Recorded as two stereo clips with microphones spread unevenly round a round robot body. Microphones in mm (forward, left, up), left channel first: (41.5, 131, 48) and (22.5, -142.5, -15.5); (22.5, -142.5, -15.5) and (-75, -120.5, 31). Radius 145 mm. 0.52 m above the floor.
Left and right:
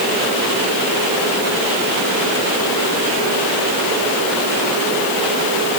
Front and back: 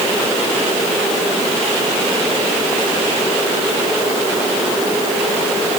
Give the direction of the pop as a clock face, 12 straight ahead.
No pop in this recording.